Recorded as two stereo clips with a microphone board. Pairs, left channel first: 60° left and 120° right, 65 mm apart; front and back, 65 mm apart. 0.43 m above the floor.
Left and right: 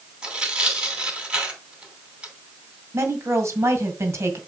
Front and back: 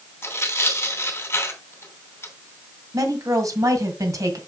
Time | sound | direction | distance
0.2 | tearing paper | 45° right | 2.5 m
2.9 | a woman speaking | 160° right | 1.9 m